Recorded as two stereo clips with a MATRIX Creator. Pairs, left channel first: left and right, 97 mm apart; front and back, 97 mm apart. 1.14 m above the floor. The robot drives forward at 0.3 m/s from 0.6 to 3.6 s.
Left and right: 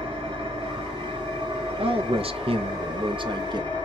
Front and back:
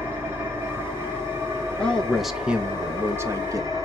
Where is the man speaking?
80° right, 0.6 m; by 3.7 s 125° right, 0.7 m.